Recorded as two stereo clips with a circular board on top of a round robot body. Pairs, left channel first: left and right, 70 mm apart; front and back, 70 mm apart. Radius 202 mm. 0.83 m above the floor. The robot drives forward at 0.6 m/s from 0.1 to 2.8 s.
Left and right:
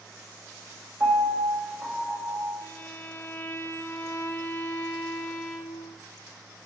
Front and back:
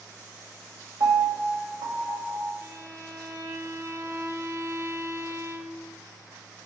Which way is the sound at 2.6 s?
135° left.